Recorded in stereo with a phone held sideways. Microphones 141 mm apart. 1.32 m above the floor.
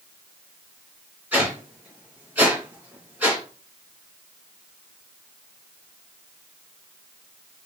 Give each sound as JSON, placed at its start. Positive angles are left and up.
{"t": 1.3, "sound": "a whoosh", "side_deg": -10, "distance_m": 2.5}